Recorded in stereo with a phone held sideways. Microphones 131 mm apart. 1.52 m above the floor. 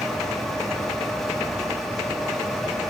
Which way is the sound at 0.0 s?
Centre (ahead or behind).